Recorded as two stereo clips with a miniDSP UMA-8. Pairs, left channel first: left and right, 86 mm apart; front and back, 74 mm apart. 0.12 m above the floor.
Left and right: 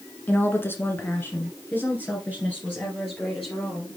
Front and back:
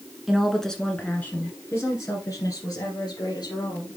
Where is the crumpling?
No crumpling in this recording.